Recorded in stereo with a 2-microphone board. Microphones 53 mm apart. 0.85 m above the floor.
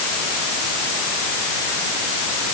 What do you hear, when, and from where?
Only background noise.